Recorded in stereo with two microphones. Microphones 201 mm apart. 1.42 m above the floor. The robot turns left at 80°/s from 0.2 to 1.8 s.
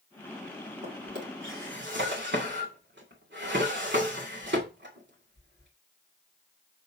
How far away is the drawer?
About 2.5 m.